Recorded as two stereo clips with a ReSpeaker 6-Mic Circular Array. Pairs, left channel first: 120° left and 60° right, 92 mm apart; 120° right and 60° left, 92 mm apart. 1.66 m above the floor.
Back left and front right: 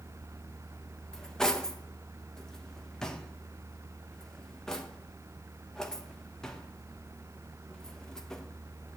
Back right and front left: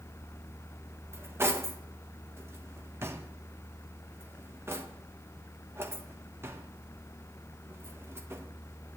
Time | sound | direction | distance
1.1 | cutlery clinking | 45° left | 0.9 m